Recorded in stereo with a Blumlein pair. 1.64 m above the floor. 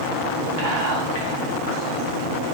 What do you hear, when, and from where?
0.6 s whispering: 50° right, 1.1 m